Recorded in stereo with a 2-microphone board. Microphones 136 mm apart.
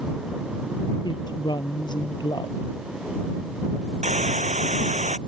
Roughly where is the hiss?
Right.